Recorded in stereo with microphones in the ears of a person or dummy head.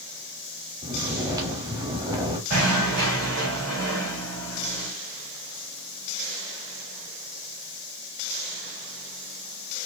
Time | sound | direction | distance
0.8 | snoring | 15° right (ahead or behind) | 0.9 m
2.5 | knocking | 45° right (ahead or behind) | 2.5 m